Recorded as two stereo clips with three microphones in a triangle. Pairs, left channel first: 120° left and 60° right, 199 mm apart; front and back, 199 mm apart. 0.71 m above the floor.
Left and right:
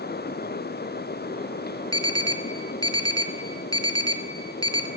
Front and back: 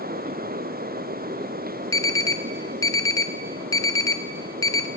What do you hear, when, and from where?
1.9 s an alarm: 65° left, 1.0 m